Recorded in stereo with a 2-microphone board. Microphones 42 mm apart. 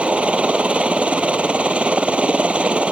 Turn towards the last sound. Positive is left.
turn(degrees=-30)  # may be behind; listen again after turning